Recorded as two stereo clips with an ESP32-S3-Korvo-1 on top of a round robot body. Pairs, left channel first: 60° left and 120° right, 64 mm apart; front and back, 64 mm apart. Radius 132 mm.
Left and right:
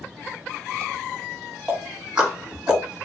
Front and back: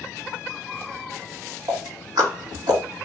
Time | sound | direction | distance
1.7 | ticking | 165° left | 1.7 m